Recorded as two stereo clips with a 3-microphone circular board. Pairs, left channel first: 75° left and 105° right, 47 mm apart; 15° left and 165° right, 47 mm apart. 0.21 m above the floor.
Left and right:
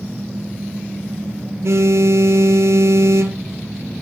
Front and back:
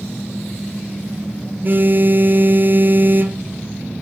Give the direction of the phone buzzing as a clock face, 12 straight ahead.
4 o'clock.